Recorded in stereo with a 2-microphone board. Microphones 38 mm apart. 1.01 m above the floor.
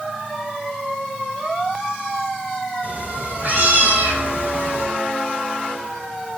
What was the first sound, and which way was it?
A cat meowing, 40° right (ahead or behind).